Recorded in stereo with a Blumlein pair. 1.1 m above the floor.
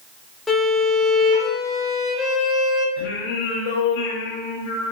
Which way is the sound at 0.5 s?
5° left.